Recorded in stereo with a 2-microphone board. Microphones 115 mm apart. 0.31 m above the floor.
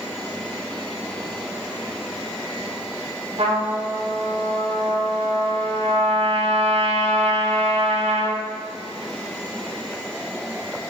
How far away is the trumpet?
About 0.8 m.